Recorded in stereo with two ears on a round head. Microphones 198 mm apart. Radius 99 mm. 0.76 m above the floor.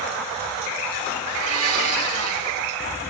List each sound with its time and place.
1.2 s a blender: 75° right (ahead or behind), 3.5 m